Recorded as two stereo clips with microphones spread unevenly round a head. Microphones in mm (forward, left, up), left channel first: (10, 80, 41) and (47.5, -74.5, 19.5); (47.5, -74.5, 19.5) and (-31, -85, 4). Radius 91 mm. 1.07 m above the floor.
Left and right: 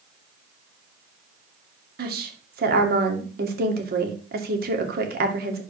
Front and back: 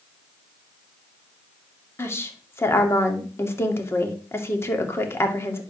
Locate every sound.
2.0 s a woman speaking: 50° right, 2 m